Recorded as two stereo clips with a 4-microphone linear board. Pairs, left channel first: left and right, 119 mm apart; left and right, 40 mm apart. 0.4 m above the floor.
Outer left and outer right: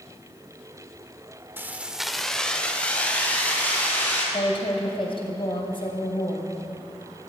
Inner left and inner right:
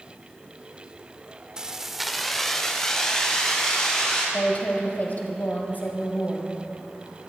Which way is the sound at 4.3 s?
45° left (ahead or behind).